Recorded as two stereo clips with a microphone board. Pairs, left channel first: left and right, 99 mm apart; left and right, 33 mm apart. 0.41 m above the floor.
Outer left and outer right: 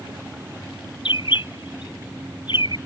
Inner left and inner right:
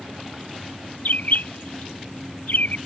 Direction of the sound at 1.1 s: 60° left (ahead or behind).